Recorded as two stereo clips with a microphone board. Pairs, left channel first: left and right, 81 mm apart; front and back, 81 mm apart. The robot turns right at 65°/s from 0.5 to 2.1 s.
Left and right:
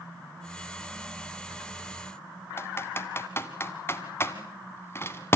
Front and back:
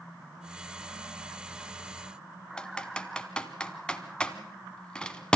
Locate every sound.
2.6 s typing on a keyboard: 70° left, 1.2 m